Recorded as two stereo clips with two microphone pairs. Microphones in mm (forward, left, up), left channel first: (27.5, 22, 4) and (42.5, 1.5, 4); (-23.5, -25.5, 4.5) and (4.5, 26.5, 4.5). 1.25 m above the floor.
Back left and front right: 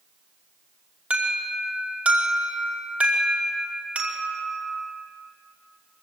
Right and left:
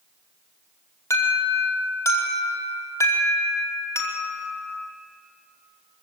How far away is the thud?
No thud in this recording.